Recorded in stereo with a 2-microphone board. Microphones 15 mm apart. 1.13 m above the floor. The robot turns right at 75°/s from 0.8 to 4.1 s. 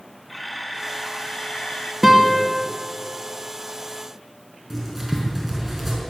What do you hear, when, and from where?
0.3 s a camera shutter: 5° right, 2.5 m; by 1.9 s 80° left, 2.5 m
2.0 s a guitar: 165° right, 2 m; by 2.5 s 130° right, 2 m
4.7 s writing: 5° right (ahead or behind), 5 m